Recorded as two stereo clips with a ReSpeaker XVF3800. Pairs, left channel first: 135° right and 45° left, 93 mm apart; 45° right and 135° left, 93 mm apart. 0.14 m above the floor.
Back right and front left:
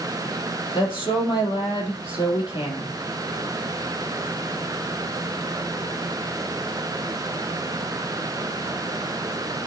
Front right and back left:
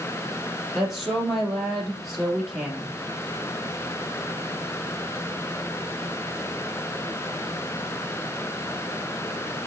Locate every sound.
0.8 s a woman speaking: 135° right, 3.5 m